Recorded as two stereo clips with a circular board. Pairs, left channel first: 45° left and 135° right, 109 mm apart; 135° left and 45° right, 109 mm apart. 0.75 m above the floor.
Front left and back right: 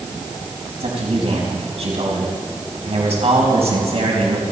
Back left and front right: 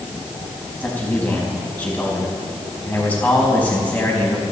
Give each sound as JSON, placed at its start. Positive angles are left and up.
{"t": 0.8, "sound": "a man speaking", "azimuth_deg": -150, "distance_m": 4.5}